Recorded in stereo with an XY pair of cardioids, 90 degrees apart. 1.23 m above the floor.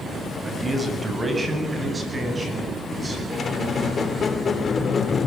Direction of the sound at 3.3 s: 45° left.